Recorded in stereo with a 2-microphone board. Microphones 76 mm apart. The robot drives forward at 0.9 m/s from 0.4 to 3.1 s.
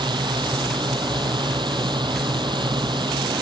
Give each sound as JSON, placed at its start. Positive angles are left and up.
{"t": 0.0, "sound": "a drone", "side_deg": -85}